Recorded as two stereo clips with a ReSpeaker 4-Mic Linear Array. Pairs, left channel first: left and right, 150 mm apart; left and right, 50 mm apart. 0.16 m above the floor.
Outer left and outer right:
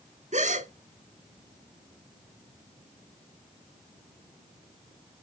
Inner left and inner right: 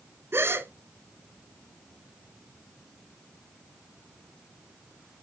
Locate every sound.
0.3 s a gasp: 55° right (ahead or behind), 0.7 m